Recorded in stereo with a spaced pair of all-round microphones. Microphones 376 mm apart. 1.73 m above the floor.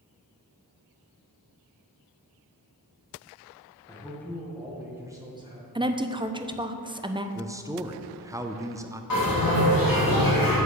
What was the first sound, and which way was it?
A man speaking, 10° left (ahead or behind).